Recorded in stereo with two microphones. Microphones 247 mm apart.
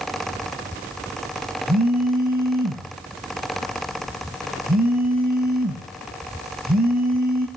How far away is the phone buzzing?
About 1.4 m.